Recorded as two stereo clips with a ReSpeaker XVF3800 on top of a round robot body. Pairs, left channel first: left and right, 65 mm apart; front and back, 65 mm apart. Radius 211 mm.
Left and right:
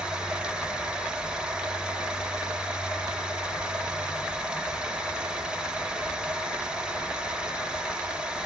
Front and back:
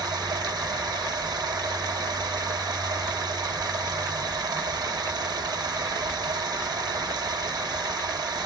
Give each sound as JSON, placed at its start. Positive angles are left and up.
{"t": 0.0, "sound": "running water", "azimuth_deg": -165, "distance_m": 1.4}